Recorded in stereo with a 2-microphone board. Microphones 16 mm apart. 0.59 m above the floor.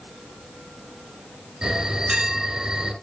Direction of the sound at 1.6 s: 70° right (ahead or behind).